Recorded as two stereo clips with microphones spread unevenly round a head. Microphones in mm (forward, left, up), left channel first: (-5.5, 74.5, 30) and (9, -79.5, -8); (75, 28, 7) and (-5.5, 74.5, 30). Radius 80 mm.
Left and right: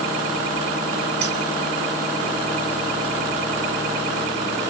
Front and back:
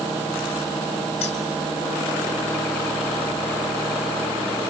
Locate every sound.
1.2 s keys jangling: 65° right, 3 m